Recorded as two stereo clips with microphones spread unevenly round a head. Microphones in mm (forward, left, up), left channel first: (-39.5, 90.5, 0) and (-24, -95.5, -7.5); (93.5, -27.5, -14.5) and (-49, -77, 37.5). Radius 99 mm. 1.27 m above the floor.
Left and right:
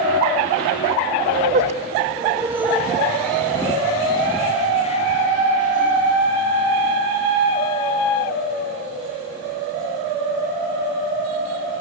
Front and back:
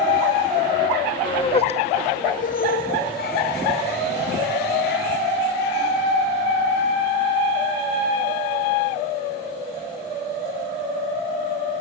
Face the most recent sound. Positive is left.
turn(degrees=45)